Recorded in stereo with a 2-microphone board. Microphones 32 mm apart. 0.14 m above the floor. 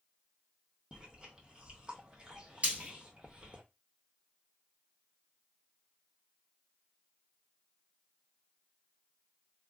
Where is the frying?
40° right (ahead or behind), 1.3 m.